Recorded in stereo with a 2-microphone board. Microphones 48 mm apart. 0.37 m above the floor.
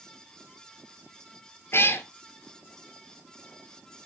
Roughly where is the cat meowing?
Left.